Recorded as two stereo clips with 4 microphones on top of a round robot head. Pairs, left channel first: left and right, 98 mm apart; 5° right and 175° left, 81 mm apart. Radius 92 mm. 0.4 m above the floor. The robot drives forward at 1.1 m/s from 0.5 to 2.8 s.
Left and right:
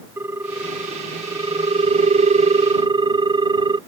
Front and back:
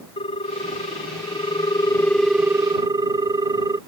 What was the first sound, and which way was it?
A ringtone, 15° right.